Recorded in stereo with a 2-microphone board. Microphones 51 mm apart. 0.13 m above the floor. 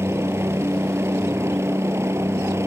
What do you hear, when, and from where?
0.0 s a helicopter: 55° right (ahead or behind); by 2.7 s 60° right (ahead or behind)